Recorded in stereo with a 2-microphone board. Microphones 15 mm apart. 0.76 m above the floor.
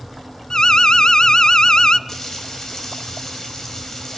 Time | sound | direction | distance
0.5 | an alarm | 50° left (ahead or behind) | 0.6 m
2.1 | frying | 35° left (ahead or behind) | 3 m